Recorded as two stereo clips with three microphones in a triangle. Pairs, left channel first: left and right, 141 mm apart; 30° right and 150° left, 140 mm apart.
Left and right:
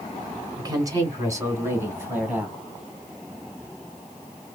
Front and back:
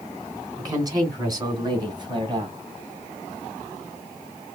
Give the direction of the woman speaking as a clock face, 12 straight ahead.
5 o'clock.